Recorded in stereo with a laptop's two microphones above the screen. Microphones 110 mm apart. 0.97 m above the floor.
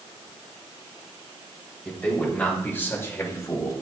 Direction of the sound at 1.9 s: 15° left (ahead or behind).